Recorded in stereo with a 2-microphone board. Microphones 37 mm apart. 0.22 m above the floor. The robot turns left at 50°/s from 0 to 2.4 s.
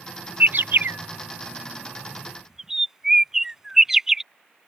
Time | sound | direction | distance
0.4 | a bird | 55° right (ahead or behind) | ?